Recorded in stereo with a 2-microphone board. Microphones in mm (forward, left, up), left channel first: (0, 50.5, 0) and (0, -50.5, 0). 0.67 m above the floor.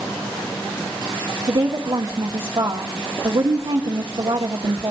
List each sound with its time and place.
1.5 s a woman speaking: 55° right (ahead or behind), 0.9 m